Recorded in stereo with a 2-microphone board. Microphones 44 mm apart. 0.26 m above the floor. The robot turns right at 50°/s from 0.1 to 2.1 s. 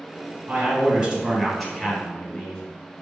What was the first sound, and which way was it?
A man speaking, 60° right.